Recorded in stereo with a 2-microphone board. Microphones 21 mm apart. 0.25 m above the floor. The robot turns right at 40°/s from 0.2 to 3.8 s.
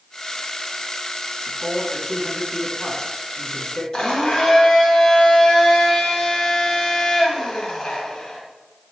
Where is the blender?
40° left (ahead or behind), 1.7 m.